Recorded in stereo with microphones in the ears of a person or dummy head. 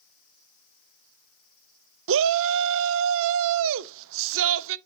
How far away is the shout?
About 0.5 m.